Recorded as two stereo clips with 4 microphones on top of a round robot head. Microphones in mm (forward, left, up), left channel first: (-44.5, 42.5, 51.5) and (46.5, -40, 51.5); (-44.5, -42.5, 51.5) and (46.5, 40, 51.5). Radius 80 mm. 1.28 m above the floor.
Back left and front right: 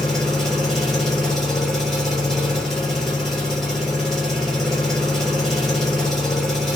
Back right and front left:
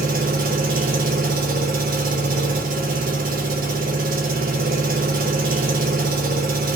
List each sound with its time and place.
0.0 s an engine running: 50° left, 1.1 m